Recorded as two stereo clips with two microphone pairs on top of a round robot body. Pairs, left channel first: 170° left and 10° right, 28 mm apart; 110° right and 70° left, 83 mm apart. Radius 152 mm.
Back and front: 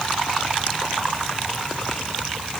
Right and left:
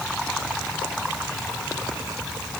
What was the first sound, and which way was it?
Only background noise.